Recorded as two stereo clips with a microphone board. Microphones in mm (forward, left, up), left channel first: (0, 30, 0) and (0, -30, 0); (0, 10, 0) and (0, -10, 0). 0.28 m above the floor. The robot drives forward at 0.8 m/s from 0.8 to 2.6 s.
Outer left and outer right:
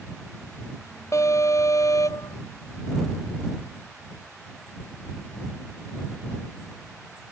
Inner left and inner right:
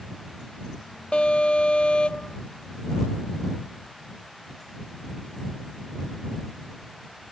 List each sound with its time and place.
1.1 s an alarm: 55° left (ahead or behind); by 2.4 s 65° left (ahead or behind)